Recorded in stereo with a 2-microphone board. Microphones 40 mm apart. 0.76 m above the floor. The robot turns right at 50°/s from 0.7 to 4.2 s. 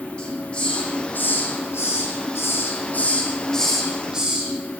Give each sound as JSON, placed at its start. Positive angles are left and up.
{"t": 0.2, "sound": "a hiss", "side_deg": 25, "distance_m": 8.0}